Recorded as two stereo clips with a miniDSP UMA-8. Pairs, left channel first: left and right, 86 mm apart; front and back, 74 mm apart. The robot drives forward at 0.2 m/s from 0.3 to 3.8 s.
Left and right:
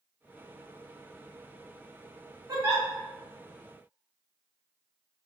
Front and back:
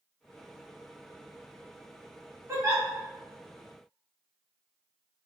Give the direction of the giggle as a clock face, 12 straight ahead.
4 o'clock.